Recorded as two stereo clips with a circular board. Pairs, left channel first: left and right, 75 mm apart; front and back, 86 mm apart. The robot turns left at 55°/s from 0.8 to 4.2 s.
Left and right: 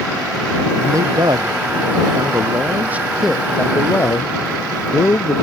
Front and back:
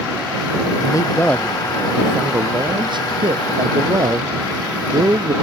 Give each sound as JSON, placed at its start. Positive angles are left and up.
{"t": 0.8, "sound": "a man speaking", "azimuth_deg": -40}